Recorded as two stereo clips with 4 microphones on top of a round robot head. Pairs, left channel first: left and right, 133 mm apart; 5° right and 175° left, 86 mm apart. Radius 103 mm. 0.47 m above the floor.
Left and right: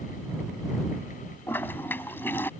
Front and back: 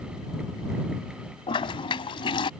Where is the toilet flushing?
15° left.